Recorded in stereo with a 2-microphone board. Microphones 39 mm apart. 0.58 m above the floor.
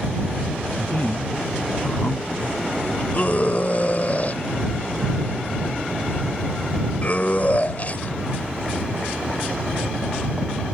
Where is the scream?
40° left (ahead or behind).